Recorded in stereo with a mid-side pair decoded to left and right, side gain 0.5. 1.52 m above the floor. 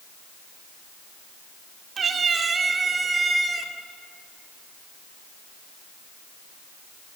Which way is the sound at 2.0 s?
45° right.